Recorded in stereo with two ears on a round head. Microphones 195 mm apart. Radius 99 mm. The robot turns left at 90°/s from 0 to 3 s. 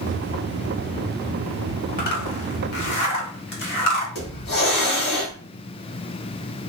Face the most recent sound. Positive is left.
turn(degrees=50)  # may be behind; listen again after turning